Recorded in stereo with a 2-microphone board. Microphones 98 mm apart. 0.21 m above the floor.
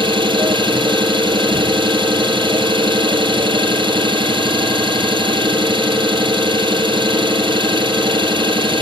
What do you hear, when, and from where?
0.0 s an engine running: 55° right (ahead or behind), 5 m